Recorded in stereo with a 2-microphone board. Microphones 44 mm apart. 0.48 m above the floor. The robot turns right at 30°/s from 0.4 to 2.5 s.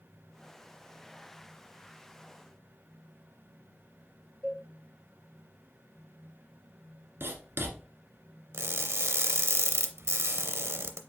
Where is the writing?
65° right (ahead or behind), 1.3 m.